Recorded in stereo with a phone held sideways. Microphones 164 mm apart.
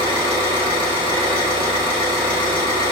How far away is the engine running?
About 1.2 m.